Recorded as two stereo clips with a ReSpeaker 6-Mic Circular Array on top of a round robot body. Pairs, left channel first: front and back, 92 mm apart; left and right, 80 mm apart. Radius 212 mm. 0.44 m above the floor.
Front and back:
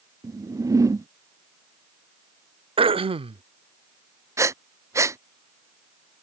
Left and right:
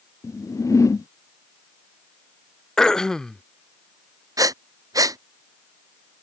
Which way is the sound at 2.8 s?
175° left.